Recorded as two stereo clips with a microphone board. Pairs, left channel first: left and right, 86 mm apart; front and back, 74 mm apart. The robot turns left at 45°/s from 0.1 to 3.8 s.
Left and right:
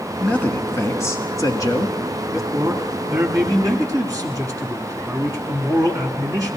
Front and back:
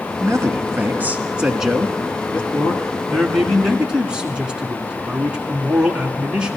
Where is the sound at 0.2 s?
165° left, 1.3 m; by 2.4 s 65° left, 1.3 m.